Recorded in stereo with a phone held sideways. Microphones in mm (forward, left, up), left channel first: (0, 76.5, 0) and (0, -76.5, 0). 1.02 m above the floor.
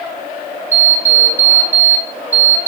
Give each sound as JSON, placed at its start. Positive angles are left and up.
{"t": 0.7, "sound": "an alarm clock", "side_deg": -10, "distance_m": 0.8}